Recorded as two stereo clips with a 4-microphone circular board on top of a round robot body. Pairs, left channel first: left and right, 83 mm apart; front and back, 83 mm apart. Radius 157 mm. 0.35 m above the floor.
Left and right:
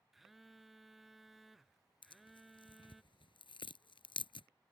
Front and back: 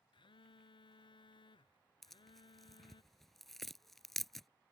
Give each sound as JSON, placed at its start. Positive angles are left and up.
{"t": 0.1, "sound": "a phone buzzing", "azimuth_deg": 0}
{"t": 2.0, "sound": "tearing paper", "azimuth_deg": 85}